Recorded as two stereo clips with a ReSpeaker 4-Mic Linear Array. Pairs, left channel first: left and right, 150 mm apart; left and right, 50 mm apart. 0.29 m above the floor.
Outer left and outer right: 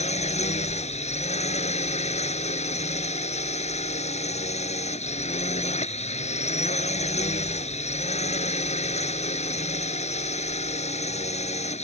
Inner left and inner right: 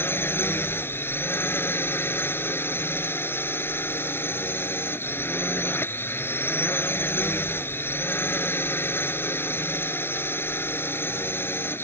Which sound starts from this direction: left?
A drone, at 0.0 s.